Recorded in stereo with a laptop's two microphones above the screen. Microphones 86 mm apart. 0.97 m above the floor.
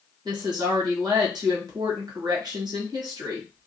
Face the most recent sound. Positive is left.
turn(degrees=-55)  # may be behind; listen again after turning